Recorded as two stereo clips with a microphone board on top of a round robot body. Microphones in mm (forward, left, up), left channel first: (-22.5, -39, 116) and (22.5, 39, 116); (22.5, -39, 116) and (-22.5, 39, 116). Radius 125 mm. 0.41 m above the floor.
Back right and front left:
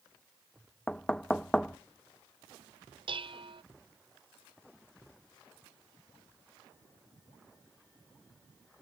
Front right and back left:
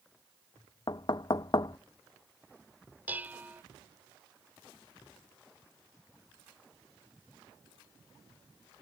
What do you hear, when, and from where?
0.9 s knocking: 40° right
3.1 s dishes clattering: 50° left